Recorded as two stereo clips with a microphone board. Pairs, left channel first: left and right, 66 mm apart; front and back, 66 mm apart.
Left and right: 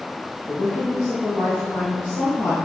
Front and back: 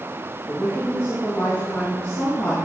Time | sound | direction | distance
0.5 | a woman speaking | 55° left | 2 m